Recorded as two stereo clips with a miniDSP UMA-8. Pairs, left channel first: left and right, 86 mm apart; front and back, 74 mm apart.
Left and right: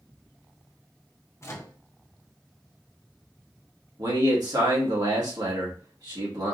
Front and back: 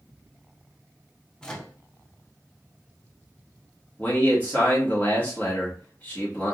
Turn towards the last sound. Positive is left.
turn(degrees=-60)